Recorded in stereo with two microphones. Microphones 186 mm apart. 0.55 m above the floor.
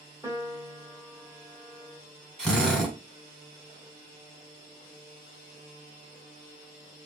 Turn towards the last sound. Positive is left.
turn(degrees=5)  # may be behind; listen again after turning